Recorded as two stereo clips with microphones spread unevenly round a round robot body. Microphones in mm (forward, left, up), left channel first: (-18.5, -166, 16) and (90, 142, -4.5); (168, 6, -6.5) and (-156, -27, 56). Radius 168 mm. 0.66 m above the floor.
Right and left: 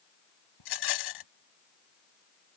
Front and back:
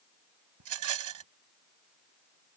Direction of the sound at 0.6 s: 135° right.